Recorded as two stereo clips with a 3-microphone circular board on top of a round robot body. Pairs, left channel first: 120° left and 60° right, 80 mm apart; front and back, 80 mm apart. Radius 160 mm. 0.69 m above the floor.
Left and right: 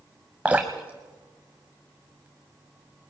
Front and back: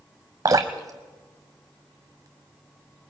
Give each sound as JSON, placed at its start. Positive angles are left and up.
{"t": 0.5, "sound": "dripping", "azimuth_deg": -135, "distance_m": 0.7}